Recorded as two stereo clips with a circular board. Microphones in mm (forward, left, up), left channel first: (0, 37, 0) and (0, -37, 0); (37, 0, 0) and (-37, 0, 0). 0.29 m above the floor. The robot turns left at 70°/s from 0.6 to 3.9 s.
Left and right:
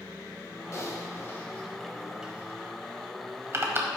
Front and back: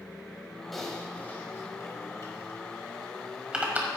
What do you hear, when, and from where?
0.7 s typing on a keyboard: 90° left, 1.5 m; by 3.9 s 135° right, 1.5 m